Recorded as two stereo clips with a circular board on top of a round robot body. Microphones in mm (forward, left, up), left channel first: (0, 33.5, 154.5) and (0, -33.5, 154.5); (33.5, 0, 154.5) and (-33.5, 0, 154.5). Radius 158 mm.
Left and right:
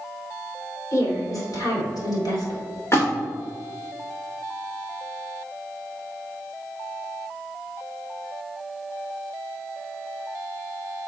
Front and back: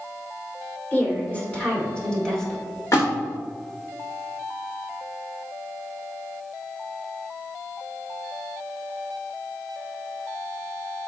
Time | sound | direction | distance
0.9 | a woman speaking | 65° left | 3 m
2.9 | a splash | 40° left | 2.5 m